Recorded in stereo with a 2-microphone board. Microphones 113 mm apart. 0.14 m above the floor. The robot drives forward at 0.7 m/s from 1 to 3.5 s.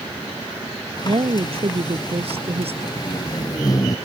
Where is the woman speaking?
50° right (ahead or behind); by 2.9 s 65° right (ahead or behind).